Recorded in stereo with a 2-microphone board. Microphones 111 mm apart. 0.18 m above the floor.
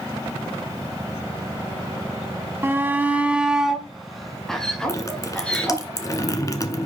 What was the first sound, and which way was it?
A shout, 20° right (ahead or behind).